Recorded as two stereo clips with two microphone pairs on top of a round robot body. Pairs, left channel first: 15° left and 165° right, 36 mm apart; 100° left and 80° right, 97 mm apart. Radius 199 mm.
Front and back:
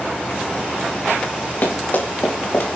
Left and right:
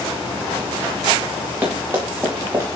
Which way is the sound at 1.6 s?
10° right.